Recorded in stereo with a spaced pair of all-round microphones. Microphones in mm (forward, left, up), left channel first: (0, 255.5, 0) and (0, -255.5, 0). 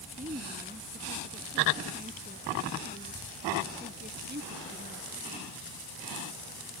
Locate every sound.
0.2 s a woman speaking: 15° right (ahead or behind); by 5.2 s 20° right (ahead or behind)